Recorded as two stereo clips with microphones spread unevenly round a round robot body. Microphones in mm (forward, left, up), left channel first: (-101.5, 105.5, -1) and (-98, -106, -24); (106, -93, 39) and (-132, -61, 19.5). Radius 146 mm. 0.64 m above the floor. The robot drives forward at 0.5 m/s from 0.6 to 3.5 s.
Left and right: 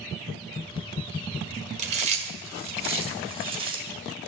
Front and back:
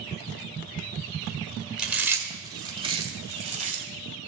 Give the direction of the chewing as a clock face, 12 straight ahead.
4 o'clock.